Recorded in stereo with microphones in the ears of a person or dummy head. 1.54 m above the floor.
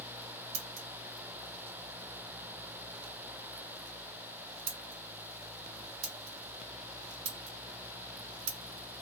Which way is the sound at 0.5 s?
65° right (ahead or behind).